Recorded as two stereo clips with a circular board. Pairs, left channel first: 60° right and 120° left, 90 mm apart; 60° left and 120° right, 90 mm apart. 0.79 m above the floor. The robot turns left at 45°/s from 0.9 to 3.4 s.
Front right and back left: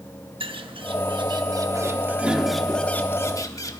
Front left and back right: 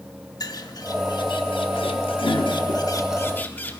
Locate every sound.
0.4 s a bird: 105° left, 0.8 m; by 3.8 s 10° right, 0.8 m